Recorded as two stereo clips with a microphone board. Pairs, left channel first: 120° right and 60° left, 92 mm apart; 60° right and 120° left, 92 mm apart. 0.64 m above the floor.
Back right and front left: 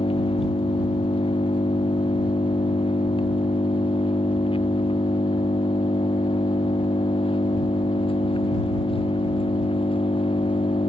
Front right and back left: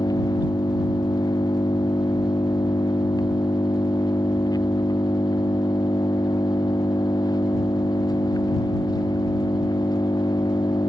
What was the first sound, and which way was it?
An engine running, 105° right.